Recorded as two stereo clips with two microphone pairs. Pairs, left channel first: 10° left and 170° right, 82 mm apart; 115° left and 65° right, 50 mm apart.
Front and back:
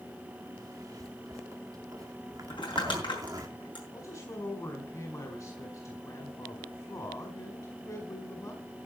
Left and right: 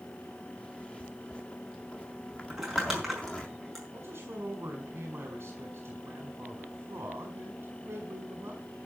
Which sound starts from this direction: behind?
A zipper, at 0.6 s.